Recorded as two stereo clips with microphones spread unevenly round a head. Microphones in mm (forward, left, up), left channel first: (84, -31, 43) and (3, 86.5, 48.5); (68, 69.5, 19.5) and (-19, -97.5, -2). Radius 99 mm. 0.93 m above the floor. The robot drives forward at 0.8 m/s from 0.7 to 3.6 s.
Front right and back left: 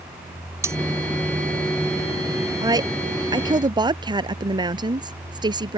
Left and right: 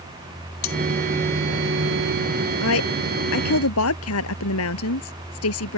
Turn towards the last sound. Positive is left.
turn(degrees=65)